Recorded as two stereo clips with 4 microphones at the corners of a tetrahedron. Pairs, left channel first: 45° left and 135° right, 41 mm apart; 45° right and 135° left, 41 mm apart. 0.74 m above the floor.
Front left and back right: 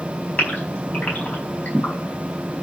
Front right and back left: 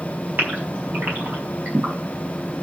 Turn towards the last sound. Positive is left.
turn(degrees=95)